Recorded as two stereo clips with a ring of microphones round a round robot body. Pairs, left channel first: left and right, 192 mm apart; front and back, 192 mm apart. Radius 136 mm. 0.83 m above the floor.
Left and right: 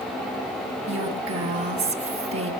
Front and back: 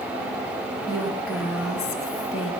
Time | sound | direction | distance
0.9 | a woman speaking | 95° right | 6 m